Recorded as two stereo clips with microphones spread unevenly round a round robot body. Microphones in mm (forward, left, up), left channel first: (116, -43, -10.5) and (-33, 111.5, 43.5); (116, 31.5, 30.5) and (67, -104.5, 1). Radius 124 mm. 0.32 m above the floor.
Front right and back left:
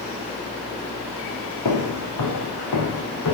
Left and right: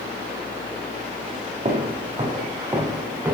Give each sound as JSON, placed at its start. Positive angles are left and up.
{"t": 1.6, "sound": "footsteps", "azimuth_deg": -60, "distance_m": 3.0}